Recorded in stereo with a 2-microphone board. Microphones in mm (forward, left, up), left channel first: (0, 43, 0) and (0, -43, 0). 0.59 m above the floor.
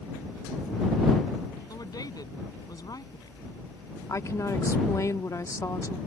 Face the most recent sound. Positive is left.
turn(degrees=40)  # may be behind; listen again after turning